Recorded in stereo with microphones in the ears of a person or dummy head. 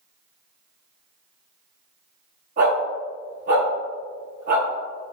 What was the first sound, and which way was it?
A dog barking, 45° right (ahead or behind).